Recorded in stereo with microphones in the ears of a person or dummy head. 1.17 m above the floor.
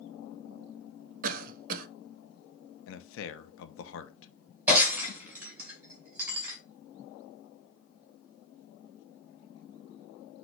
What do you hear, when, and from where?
1.2 s a cough: 50° right (ahead or behind), 0.6 m
2.9 s a man speaking: 65° left (ahead or behind), 0.6 m
4.7 s breaking glass: 15° right (ahead or behind), 2.5 m